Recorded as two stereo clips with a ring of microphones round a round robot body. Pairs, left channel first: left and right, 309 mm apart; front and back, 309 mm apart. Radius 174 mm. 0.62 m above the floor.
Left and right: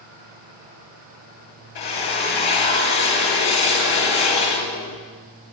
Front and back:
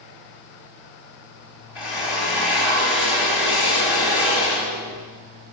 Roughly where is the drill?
Left.